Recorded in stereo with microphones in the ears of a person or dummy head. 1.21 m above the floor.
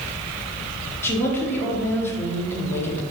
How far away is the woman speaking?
About 0.6 m.